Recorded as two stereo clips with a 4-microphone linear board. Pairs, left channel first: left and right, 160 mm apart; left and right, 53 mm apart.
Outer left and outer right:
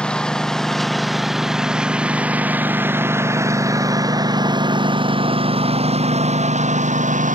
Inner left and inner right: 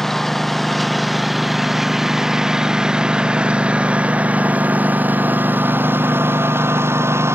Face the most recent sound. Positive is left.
turn(degrees=-55)  # may be behind; listen again after turning